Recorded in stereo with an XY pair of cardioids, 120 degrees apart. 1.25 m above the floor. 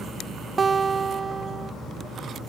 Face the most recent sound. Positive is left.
turn(degrees=-30)